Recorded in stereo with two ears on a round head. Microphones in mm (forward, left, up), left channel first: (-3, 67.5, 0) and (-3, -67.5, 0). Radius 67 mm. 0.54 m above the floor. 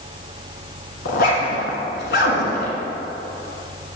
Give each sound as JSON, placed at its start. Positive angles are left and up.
{"t": 1.1, "sound": "a zipper", "side_deg": 70, "distance_m": 1.2}